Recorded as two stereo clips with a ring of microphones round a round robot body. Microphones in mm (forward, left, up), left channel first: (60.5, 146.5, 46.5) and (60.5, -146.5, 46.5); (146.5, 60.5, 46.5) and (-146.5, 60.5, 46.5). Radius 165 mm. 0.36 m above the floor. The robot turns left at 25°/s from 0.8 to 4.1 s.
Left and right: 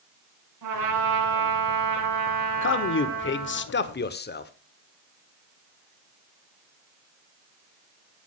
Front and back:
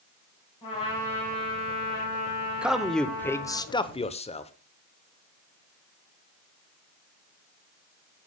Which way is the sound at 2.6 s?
95° left.